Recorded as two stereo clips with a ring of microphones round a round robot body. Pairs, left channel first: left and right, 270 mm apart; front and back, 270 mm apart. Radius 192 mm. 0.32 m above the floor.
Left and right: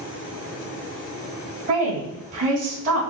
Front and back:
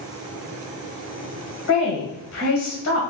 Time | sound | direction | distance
1.7 | a woman speaking | 30° right | 1.9 m